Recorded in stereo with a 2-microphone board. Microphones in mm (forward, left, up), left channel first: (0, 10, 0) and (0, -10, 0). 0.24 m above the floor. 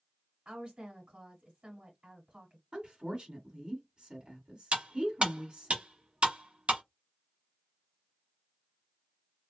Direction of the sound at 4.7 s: 60° right (ahead or behind).